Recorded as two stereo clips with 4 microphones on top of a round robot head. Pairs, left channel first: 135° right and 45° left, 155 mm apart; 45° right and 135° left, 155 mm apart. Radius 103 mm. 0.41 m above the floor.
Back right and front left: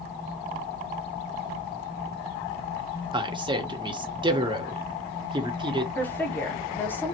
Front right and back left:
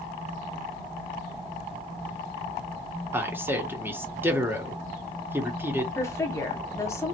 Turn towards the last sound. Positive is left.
turn(degrees=-80)